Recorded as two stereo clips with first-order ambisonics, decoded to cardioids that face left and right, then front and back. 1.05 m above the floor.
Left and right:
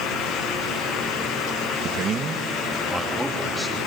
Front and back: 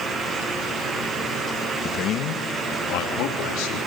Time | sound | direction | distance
1.8 | a man speaking | 50° right | 1.1 m